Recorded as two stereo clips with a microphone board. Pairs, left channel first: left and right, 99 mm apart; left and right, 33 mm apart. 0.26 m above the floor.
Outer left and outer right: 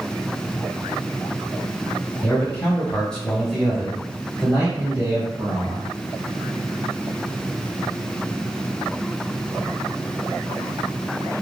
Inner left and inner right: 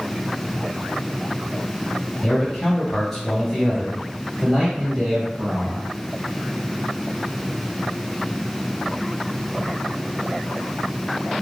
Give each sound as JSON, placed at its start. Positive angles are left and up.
{"t": 2.2, "sound": "a man speaking", "side_deg": 15, "distance_m": 1.4}